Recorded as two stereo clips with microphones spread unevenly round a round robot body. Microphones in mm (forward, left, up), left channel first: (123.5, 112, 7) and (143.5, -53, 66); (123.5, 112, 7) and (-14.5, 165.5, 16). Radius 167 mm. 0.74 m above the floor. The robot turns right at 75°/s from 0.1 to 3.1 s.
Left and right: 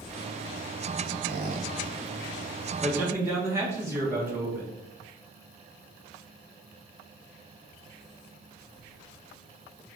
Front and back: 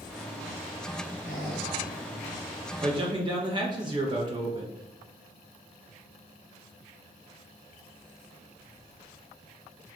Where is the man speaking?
155° left, 0.7 m; by 4.8 s straight behind, 0.7 m.